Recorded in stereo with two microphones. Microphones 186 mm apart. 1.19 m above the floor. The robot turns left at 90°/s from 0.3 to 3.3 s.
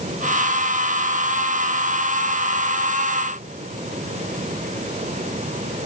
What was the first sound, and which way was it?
Only background noise.